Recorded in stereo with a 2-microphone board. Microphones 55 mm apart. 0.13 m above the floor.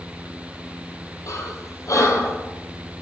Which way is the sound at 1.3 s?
75° left (ahead or behind).